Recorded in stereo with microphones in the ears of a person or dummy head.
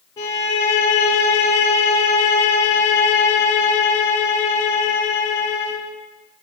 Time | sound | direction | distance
0.2 | a violin | 15° left (ahead or behind) | 0.8 m